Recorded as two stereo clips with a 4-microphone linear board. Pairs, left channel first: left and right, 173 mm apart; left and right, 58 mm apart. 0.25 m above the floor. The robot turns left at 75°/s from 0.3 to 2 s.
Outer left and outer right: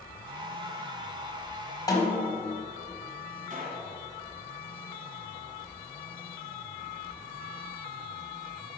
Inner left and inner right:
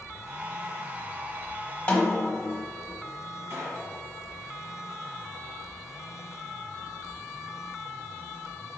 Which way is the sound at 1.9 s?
20° left (ahead or behind).